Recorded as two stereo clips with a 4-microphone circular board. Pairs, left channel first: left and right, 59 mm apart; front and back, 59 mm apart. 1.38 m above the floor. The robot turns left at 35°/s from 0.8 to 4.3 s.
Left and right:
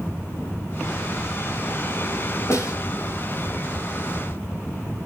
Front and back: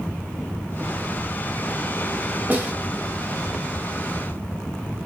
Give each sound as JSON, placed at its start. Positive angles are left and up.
{"t": 2.5, "sound": "a snare drum", "azimuth_deg": 125, "distance_m": 3.0}